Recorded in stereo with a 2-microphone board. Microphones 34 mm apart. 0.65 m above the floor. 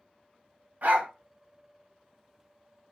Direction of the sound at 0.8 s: 55° right (ahead or behind).